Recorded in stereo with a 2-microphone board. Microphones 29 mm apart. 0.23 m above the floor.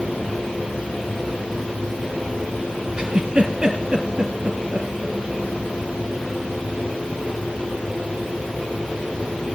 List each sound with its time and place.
3.0 s a giggle: 30° right (ahead or behind), 3.5 m